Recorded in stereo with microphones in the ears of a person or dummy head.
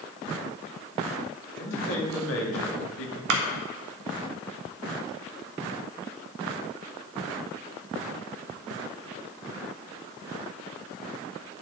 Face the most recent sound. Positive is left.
turn(degrees=-65)  # may be behind; listen again after turning